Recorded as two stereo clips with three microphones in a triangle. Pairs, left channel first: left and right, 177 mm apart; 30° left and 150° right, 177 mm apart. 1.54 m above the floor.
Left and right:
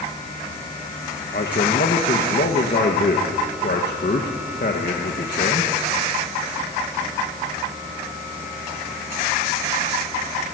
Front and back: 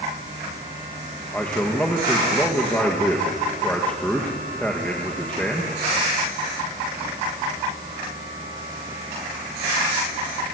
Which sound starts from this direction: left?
A man speaking, at 1.3 s.